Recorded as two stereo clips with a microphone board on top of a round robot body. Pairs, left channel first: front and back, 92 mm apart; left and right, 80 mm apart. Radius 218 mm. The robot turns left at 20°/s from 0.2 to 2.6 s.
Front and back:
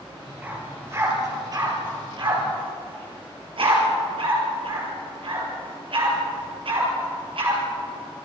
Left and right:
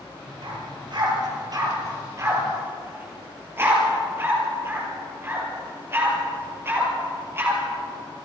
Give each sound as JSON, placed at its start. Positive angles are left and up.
{"t": 0.4, "sound": "a dog barking", "azimuth_deg": -110, "distance_m": 5.0}